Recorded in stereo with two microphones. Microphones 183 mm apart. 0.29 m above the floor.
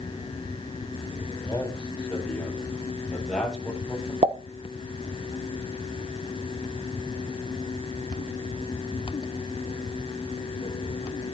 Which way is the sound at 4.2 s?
35° right (ahead or behind).